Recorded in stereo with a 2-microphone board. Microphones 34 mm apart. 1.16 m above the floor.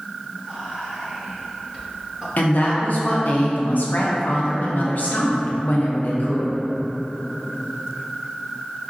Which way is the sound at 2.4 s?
60° left (ahead or behind).